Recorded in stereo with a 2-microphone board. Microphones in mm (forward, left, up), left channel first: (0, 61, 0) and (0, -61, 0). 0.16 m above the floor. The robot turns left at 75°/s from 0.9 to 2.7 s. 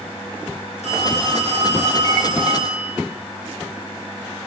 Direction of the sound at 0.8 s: 70° left.